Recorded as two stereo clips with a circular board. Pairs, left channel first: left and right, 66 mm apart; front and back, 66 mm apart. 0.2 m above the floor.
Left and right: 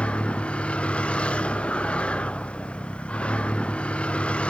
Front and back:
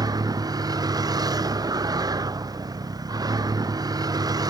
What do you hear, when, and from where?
0.0 s a vehicle: 165° left